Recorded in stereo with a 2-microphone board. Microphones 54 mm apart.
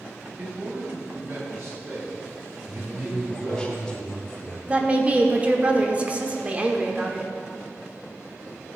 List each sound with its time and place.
0.4 s a man speaking: 35° right (ahead or behind), 2.5 m; by 3.7 s 60° right (ahead or behind), 6 m
2.7 s a man speaking: 15° left (ahead or behind), 0.9 m
4.7 s a woman speaking: 25° right (ahead or behind), 1.0 m